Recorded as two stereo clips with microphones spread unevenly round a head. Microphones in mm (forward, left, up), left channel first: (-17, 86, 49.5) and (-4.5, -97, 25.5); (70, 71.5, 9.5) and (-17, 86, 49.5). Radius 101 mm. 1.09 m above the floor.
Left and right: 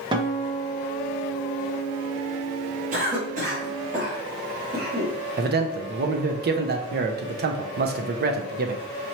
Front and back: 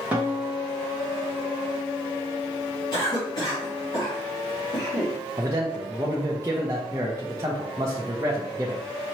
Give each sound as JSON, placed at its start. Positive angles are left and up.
{"t": 0.1, "sound": "a guitar", "azimuth_deg": -95, "distance_m": 0.8}
{"t": 2.9, "sound": "a cough", "azimuth_deg": -45, "distance_m": 1.9}
{"t": 5.4, "sound": "a man speaking", "azimuth_deg": -110, "distance_m": 0.6}